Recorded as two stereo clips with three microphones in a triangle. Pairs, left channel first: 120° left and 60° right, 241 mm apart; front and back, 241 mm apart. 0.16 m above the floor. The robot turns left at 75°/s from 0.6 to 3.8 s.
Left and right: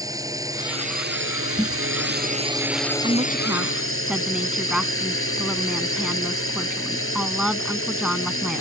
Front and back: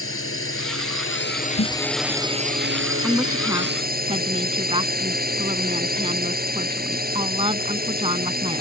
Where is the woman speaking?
85° right; by 8.6 s 145° right.